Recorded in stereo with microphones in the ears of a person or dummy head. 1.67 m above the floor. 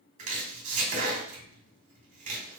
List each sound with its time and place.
0.2 s chopping: 40° right (ahead or behind), 1.8 m